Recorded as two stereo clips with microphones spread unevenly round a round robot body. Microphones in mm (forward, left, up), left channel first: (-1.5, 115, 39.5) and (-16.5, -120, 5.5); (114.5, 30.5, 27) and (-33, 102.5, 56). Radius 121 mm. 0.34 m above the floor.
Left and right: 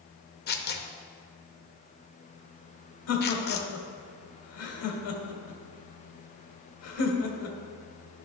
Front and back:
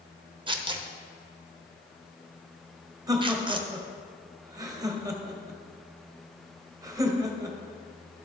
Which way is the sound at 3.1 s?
80° left.